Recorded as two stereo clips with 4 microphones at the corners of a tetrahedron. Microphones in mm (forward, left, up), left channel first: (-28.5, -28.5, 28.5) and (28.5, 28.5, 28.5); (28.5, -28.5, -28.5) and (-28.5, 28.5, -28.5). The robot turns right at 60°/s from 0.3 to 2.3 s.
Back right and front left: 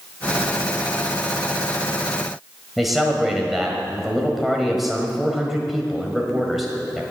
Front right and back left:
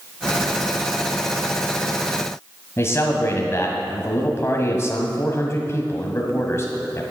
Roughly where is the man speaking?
Ahead right.